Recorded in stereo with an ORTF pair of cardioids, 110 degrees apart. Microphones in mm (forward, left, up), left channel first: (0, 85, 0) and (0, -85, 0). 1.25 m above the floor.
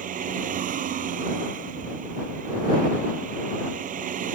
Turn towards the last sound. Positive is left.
turn(degrees=-55)